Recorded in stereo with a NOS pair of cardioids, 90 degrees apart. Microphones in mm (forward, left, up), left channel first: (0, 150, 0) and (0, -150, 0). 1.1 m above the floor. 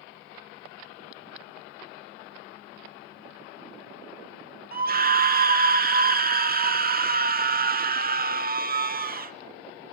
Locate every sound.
4.7 s a scream: 30° right, 2 m